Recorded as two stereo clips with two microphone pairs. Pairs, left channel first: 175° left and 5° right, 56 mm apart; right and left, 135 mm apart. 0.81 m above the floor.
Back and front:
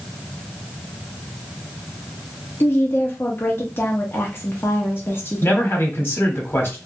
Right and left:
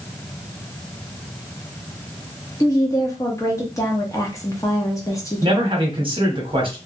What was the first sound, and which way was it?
A woman speaking, 150° right.